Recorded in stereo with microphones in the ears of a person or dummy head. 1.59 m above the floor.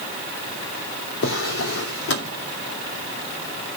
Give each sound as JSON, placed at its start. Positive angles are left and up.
{"t": 1.2, "sound": "a drawer", "side_deg": 70, "distance_m": 2.5}